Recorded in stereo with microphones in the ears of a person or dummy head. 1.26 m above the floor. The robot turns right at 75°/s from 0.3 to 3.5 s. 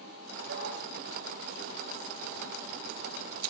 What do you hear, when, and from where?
0.5 s a dog barking: 75° right (ahead or behind), 7 m